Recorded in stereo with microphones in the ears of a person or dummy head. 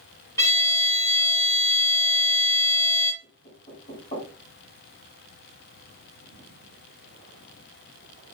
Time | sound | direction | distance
0.4 | a violin | 20° left (ahead or behind) | 0.8 m
3.2 | knocking | 35° left (ahead or behind) | 2.5 m